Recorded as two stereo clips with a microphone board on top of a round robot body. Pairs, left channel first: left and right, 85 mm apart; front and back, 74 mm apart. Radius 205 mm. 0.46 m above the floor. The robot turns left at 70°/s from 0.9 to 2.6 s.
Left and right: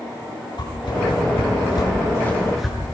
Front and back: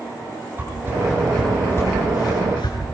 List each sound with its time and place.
0.6 s a whoosh: 120° left, 9 m; by 2.8 s straight ahead, 9 m